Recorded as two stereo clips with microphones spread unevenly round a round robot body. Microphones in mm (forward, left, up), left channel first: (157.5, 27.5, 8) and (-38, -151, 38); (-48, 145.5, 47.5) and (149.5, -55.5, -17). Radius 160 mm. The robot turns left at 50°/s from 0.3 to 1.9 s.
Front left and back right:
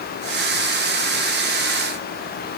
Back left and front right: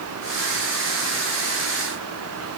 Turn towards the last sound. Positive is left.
No sound to turn to.